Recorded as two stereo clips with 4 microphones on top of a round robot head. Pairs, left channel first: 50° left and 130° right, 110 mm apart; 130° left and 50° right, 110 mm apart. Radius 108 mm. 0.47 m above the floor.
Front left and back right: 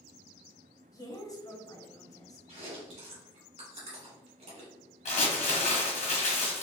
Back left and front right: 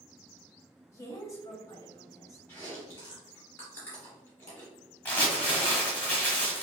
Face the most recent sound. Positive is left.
turn(degrees=55)